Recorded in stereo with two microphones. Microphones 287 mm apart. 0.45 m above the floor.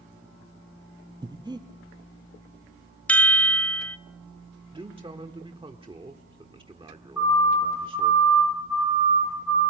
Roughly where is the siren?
Left.